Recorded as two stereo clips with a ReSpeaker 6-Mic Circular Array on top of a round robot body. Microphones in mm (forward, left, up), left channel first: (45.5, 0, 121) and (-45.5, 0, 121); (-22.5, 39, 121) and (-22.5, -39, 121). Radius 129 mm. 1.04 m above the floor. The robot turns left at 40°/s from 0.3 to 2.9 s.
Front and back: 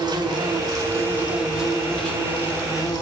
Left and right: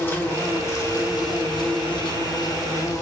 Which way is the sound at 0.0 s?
150° left.